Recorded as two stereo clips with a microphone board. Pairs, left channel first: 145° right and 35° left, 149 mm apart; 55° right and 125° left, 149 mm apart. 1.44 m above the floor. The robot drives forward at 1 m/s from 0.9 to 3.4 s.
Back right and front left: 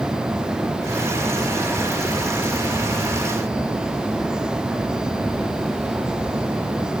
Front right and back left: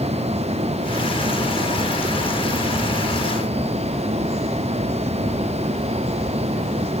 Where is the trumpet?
I don't hear a trumpet.